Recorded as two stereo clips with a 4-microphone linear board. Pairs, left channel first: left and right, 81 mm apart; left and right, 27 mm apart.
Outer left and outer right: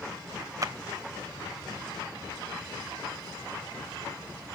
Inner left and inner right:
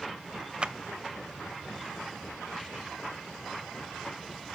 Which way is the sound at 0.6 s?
40° right (ahead or behind).